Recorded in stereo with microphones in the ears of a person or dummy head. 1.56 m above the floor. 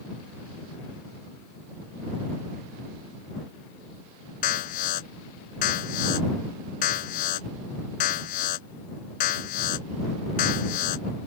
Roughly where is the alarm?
Left.